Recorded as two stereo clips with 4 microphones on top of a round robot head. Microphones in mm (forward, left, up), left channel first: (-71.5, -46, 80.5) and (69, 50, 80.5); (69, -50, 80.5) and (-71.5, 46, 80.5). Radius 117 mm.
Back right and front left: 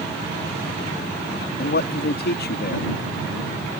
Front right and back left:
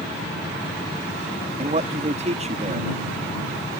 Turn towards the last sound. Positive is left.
turn(degrees=-165)